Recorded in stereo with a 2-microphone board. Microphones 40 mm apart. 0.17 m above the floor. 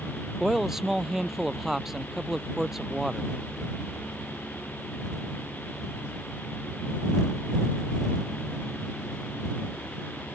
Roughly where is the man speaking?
Centre.